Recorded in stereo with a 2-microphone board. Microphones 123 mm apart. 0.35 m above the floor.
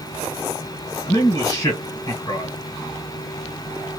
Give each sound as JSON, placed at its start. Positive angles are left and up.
{"t": 1.1, "sound": "a man speaking", "side_deg": 35, "distance_m": 1.7}